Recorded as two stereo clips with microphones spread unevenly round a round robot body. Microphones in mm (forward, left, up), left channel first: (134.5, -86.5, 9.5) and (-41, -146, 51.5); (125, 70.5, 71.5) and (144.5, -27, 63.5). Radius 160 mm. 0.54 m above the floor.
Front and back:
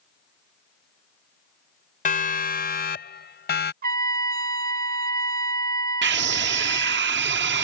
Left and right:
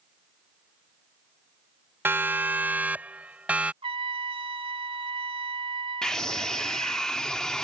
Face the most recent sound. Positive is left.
turn(degrees=-170)